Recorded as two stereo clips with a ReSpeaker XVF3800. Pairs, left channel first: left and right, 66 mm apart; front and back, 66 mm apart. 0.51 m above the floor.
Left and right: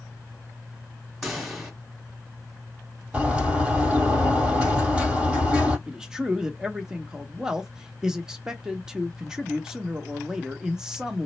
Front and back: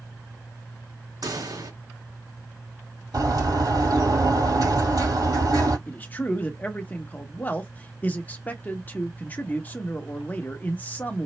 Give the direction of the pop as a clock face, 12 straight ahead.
6 o'clock.